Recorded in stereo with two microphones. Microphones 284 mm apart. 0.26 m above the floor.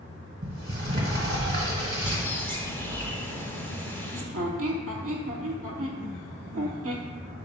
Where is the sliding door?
35° right (ahead or behind), 1.0 m.